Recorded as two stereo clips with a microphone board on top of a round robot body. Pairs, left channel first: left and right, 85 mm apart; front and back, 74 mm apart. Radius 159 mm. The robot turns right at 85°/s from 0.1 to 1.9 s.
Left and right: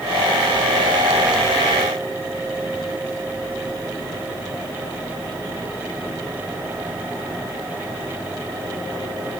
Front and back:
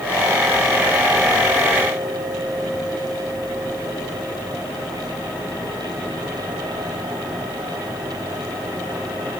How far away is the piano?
No piano in this recording.